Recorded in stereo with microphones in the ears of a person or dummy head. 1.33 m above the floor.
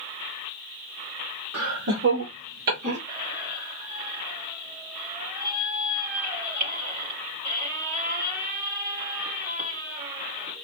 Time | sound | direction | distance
1.5 | laughter | 70° right (ahead or behind) | 1.7 m
3.1 | a squeak | 50° right (ahead or behind) | 2 m